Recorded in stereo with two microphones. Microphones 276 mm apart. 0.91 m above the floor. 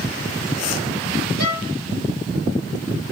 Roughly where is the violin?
Right.